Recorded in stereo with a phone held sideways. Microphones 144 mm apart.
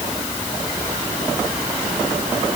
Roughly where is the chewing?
No chewing in this recording.